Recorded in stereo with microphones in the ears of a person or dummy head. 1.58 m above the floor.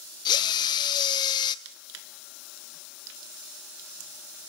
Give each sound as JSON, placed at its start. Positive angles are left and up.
{"t": 0.2, "sound": "a drill", "side_deg": 25, "distance_m": 0.8}
{"t": 1.6, "sound": "crushing", "side_deg": -80, "distance_m": 1.5}